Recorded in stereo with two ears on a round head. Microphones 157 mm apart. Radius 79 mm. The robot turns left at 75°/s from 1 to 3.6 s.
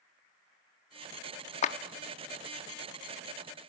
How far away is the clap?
About 0.7 m.